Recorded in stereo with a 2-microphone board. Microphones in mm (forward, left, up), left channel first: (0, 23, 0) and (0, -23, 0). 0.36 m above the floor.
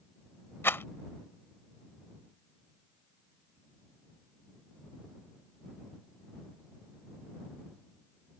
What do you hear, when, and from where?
0.6 s a rattle: 55° left (ahead or behind)